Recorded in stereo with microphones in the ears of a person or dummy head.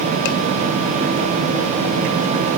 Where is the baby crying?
I don't hear a baby crying.